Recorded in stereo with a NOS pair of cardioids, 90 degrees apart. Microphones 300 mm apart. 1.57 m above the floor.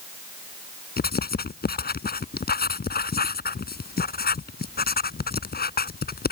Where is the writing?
30° left.